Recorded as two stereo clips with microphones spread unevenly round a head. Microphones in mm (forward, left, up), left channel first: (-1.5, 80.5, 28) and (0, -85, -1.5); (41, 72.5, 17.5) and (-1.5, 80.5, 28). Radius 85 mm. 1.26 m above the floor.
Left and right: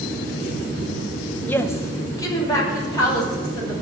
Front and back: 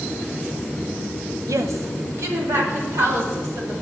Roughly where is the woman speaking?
Behind.